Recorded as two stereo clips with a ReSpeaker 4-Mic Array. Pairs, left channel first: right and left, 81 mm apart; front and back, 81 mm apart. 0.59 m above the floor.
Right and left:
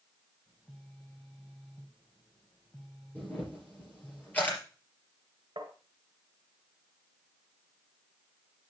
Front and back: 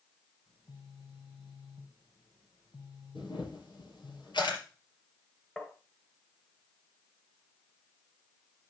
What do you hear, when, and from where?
0.5 s a phone buzzing: 15° right, 3 m
3.1 s a camera shutter: 20° right, 3.5 m
5.6 s tapping: 75° left, 1.4 m